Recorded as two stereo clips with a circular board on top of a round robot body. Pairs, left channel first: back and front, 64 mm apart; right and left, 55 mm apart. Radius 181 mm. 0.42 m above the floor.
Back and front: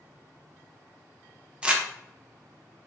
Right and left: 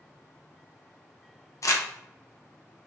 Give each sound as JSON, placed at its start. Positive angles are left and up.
{"t": 1.6, "sound": "crumpling", "azimuth_deg": -75, "distance_m": 1.0}